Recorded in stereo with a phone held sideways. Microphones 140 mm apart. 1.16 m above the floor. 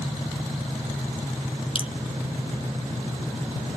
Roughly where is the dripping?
Left.